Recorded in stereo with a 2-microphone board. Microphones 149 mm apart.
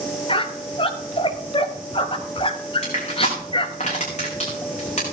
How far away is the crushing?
About 5 m.